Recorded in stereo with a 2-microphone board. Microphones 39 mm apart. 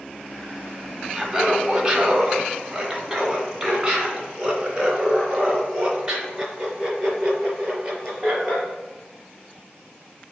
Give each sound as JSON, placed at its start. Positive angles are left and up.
{"t": 1.1, "sound": "laughter", "side_deg": -10, "distance_m": 1.2}